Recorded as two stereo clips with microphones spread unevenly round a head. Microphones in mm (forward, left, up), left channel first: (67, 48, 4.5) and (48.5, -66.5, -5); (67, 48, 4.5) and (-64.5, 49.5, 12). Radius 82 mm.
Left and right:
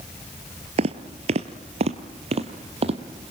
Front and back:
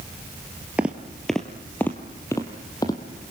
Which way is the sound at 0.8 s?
105° right.